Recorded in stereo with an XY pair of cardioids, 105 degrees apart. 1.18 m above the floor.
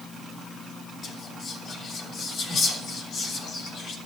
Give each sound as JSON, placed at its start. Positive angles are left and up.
{"t": 1.0, "sound": "whispering", "azimuth_deg": 65, "distance_m": 3.0}